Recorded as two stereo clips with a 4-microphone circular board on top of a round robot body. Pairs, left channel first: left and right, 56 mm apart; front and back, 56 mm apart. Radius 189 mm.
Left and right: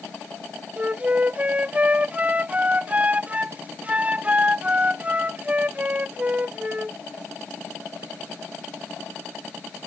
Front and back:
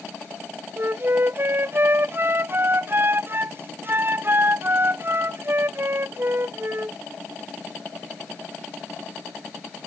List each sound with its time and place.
0.8 s a flute: 145° right